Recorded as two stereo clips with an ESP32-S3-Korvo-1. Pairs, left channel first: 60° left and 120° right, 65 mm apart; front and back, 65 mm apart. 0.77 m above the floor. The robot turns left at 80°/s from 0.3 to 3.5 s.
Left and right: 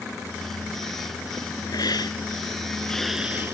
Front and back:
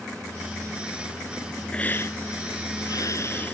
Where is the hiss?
75° left; by 3.5 s 65° right.